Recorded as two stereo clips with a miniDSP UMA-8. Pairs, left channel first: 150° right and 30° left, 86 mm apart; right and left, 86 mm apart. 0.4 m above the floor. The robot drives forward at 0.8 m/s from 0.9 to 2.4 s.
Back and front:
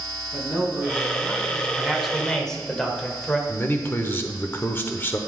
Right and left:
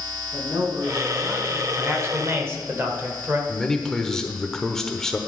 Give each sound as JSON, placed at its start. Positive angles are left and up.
{"t": 0.3, "sound": "a man speaking", "azimuth_deg": 120, "distance_m": 3.0}
{"t": 1.8, "sound": "a man speaking", "azimuth_deg": 100, "distance_m": 1.3}
{"t": 3.5, "sound": "a man speaking", "azimuth_deg": -165, "distance_m": 0.9}